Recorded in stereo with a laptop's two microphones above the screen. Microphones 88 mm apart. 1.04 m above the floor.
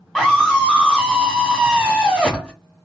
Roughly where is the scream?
Centre.